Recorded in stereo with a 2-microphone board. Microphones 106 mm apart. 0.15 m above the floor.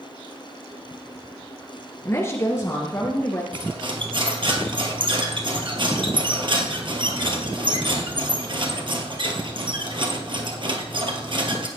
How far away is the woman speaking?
About 1.9 m.